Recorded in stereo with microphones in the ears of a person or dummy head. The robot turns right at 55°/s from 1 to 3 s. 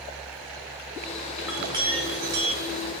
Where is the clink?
175° right, 1.7 m; by 2.9 s 90° right, 1.7 m.